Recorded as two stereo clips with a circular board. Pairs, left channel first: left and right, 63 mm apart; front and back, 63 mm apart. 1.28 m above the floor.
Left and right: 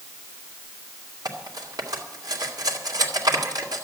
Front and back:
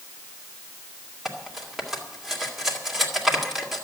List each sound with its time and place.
1.2 s cutlery clinking: 95° right, 2.5 m